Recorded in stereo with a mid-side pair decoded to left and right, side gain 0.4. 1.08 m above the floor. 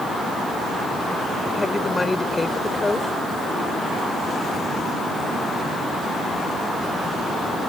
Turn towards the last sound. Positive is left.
turn(degrees=20)